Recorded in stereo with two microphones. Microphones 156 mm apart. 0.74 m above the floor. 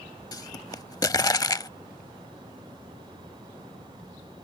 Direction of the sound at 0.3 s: 25° left (ahead or behind).